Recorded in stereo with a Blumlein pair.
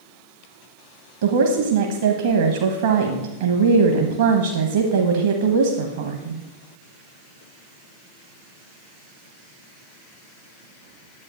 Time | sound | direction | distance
1.2 | a woman speaking | 60° right | 1.1 m